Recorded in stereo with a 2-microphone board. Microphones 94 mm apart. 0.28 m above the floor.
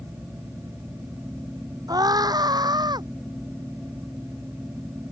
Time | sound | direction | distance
1.9 | a scream | 40° right (ahead or behind) | ?